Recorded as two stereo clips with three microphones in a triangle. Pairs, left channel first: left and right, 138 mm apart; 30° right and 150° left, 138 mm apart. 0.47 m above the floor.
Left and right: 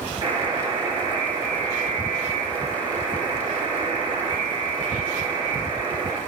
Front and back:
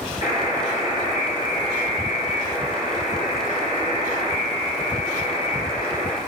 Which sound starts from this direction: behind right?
A buzzer, at 0.2 s.